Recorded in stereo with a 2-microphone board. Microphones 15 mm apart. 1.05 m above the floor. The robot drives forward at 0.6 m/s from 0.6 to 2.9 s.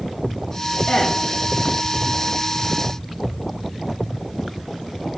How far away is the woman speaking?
About 2.5 m.